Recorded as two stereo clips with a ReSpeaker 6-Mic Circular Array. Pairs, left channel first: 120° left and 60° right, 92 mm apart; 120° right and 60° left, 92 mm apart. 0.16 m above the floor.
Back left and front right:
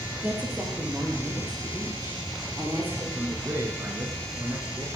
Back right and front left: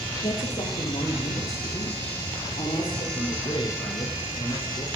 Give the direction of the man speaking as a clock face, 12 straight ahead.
4 o'clock.